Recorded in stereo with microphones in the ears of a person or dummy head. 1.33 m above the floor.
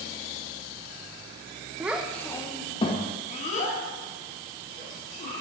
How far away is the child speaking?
About 0.5 m.